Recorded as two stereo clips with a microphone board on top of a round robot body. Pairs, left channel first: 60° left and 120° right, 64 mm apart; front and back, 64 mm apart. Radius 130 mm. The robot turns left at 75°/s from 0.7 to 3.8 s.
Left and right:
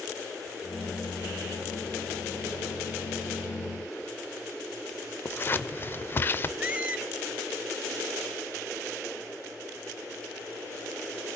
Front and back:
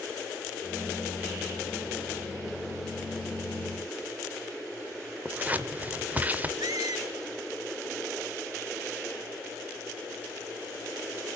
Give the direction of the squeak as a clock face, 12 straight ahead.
6 o'clock.